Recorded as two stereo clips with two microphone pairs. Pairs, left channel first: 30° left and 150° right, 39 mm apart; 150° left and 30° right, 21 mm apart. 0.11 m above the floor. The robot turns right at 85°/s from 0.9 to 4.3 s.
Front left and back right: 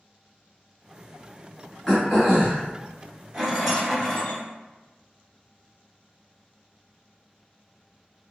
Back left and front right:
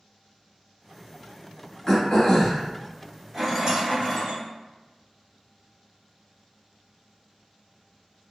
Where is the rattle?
90° right, 1.2 m; by 4.4 s 10° right, 1.2 m.